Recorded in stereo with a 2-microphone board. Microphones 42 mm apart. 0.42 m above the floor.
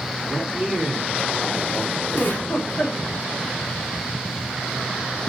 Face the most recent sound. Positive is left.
turn(degrees=55)  # may be behind; listen again after turning